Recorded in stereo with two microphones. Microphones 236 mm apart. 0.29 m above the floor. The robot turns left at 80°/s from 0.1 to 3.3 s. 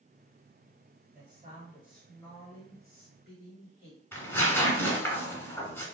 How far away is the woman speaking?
About 1.6 m.